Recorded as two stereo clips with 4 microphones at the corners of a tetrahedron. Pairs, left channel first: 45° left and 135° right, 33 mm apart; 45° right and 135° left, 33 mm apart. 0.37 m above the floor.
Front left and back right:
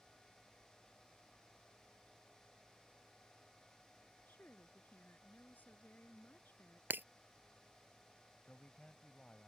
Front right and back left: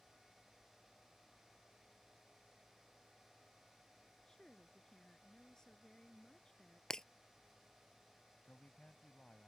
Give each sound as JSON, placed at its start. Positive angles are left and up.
{"t": 4.3, "sound": "a woman speaking", "azimuth_deg": 25}
{"t": 6.9, "sound": "breaking glass", "azimuth_deg": -120}
{"t": 8.4, "sound": "a man speaking", "azimuth_deg": -5}